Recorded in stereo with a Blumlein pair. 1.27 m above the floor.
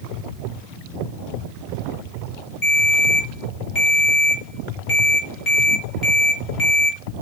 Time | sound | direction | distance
2.6 | a ringtone | 30° left | 3 m